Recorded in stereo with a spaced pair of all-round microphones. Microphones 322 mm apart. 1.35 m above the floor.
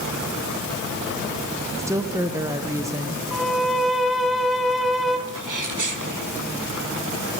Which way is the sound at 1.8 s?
10° right (ahead or behind).